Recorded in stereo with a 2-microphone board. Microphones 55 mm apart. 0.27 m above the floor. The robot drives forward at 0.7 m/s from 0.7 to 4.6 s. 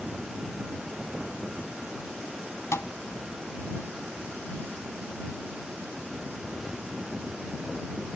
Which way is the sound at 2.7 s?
60° left (ahead or behind).